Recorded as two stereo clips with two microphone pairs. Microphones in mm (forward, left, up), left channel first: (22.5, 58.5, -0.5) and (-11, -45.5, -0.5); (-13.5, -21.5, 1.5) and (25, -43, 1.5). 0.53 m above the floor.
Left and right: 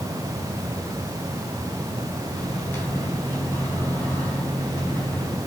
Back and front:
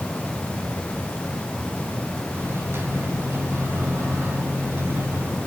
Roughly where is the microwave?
Ahead.